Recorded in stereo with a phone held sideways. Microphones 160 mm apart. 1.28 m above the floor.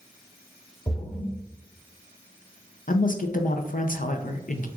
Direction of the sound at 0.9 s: 25° left (ahead or behind).